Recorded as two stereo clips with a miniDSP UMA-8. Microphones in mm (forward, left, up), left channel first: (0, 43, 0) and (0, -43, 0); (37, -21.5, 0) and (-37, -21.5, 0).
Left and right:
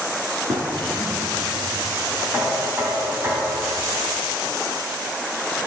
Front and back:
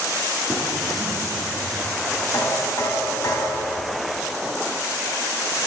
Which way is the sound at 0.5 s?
85° right.